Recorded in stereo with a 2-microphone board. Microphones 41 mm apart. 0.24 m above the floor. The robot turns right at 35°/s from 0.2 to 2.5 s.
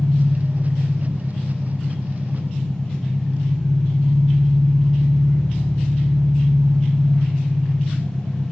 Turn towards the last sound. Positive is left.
turn(degrees=115)